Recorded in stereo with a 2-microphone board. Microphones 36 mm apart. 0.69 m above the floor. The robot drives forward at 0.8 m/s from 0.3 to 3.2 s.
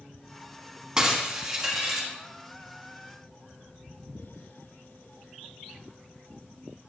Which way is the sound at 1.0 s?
20° right (ahead or behind).